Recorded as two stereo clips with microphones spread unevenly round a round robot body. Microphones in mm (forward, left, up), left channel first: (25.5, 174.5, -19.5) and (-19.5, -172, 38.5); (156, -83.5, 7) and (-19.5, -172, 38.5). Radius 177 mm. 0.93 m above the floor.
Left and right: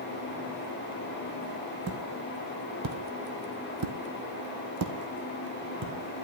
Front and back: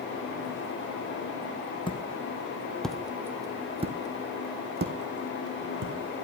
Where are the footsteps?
45° right, 2.5 m; by 5.9 s 155° right, 3 m.